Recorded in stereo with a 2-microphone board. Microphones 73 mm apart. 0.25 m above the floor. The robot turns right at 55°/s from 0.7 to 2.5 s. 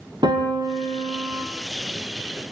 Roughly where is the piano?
Right.